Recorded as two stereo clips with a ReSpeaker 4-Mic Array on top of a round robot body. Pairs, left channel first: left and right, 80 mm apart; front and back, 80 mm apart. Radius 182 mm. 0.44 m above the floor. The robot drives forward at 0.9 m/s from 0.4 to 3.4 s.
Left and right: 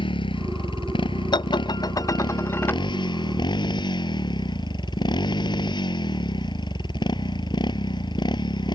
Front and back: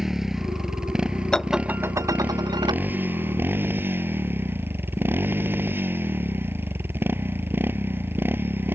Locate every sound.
0.0 s a motorcycle: 95° left; by 8.8 s 115° left
1.3 s dishes clattering: 80° left; by 2.8 s 155° left